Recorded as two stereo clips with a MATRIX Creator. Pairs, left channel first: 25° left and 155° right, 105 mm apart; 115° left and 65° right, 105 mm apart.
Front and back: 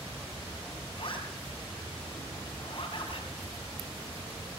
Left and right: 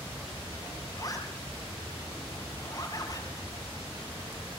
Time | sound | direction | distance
1.0 | a zipper | 60° left | 6.5 m